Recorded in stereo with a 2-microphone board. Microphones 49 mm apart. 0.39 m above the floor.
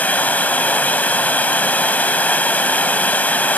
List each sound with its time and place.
0.0 s running water: 35° left (ahead or behind), 1.0 m